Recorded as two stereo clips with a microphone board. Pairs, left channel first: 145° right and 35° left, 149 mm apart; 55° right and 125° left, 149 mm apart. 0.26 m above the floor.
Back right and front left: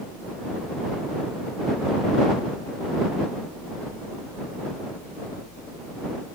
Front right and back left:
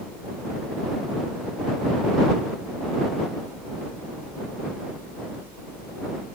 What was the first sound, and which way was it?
Only background noise.